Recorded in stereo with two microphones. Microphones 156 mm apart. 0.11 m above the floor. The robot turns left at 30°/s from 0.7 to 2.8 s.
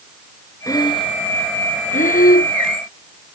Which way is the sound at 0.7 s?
25° left (ahead or behind).